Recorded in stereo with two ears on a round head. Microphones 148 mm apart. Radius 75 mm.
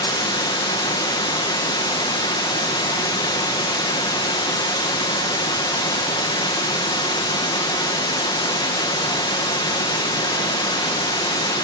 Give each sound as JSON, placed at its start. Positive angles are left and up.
{"t": 0.0, "sound": "running water", "side_deg": 25, "distance_m": 1.2}